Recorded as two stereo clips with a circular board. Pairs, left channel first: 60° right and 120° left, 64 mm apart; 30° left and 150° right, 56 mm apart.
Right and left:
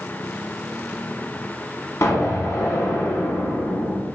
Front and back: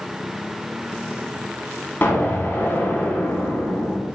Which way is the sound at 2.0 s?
25° right.